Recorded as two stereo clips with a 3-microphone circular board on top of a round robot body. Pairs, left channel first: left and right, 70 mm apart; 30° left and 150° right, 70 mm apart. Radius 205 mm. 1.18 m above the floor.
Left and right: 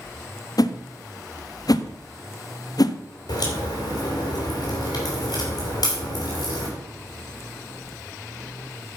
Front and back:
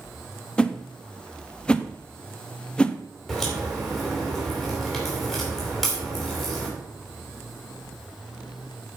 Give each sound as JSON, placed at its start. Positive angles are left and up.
{"t": 0.6, "sound": "a whoosh", "azimuth_deg": 105, "distance_m": 0.9}
{"t": 3.3, "sound": "a crack", "azimuth_deg": 120, "distance_m": 3.0}